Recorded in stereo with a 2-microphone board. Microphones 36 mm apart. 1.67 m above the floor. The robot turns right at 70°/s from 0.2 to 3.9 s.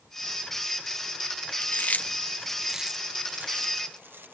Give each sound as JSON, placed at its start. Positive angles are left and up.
{"t": 1.6, "sound": "chewing", "side_deg": 70}